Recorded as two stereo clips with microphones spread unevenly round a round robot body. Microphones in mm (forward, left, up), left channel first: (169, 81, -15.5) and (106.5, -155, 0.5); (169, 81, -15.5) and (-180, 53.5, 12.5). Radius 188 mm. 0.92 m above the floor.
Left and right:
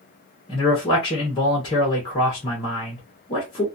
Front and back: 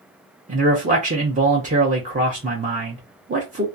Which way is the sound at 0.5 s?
125° left.